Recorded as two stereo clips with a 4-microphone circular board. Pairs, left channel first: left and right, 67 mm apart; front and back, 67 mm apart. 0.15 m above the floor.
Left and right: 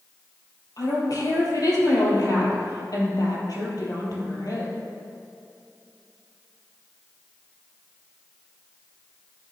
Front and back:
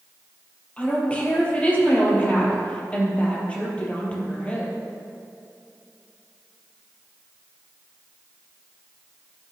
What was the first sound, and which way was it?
A woman speaking, 70° left.